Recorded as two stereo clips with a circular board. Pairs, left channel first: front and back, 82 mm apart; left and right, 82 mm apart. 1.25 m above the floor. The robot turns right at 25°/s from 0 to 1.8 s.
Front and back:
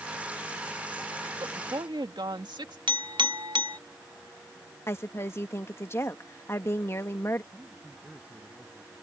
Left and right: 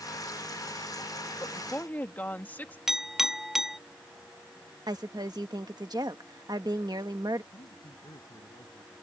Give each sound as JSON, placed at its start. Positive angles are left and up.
{"t": 1.4, "sound": "a woman speaking", "azimuth_deg": 150}
{"t": 2.9, "sound": "a clink", "azimuth_deg": -175}
{"t": 4.9, "sound": "a woman speaking", "azimuth_deg": -55}
{"t": 7.5, "sound": "a man speaking", "azimuth_deg": 110}